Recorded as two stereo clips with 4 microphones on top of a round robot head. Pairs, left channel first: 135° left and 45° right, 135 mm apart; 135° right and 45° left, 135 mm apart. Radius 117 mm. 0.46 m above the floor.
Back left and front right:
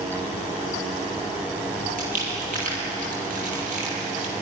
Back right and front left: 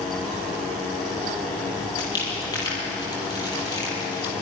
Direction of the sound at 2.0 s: 70° right.